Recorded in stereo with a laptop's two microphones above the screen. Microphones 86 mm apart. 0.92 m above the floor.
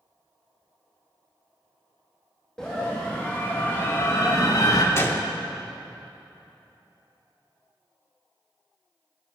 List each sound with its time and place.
2.6 s a scream: 10° left (ahead or behind), 1.7 m; by 4.8 s 45° left (ahead or behind), 1.2 m
5.0 s a gunshot: 30° left (ahead or behind), 0.9 m